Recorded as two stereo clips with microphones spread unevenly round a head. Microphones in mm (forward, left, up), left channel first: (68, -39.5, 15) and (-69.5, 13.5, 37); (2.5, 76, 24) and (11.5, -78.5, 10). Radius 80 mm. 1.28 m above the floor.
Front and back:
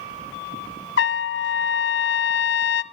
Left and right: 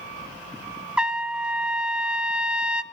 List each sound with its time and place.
1.0 s a trumpet: straight ahead, 0.7 m